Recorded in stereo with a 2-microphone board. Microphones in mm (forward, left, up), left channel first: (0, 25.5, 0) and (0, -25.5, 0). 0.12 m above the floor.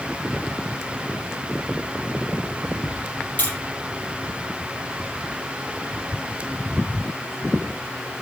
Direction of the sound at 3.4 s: 35° left (ahead or behind).